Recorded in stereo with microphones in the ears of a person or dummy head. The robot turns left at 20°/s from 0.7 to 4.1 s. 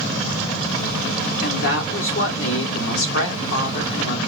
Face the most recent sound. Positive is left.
turn(degrees=60)